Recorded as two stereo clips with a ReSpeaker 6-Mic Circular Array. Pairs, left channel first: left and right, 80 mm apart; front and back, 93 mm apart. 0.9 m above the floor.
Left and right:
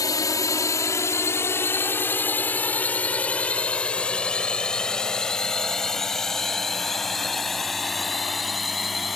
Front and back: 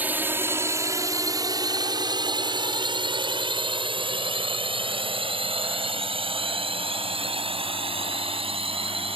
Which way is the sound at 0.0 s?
115° left.